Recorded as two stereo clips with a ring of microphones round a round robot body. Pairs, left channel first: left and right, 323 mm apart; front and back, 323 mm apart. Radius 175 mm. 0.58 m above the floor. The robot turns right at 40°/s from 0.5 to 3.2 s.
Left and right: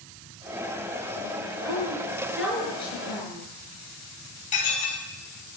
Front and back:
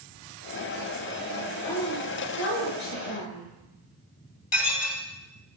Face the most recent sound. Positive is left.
turn(degrees=25)